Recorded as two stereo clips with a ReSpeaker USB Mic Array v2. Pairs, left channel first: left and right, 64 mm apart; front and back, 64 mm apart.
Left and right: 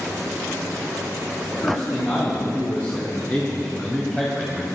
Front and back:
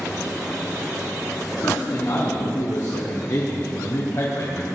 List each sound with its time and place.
1.5 s a man speaking: 40° left, 3.5 m; by 4.7 s 5° right, 1.3 m